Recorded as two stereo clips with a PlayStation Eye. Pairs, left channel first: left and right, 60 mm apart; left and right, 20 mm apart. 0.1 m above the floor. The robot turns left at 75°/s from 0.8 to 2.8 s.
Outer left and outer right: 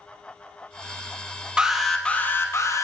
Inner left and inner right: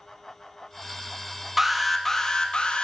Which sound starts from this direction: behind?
An alarm, at 1.6 s.